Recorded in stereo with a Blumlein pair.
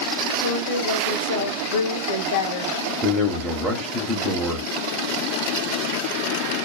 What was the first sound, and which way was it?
A woman speaking, 60° left.